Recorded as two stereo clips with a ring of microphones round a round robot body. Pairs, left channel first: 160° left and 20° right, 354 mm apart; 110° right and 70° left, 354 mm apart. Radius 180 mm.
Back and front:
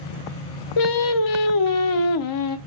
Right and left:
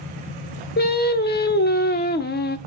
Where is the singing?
175° right, 0.8 m.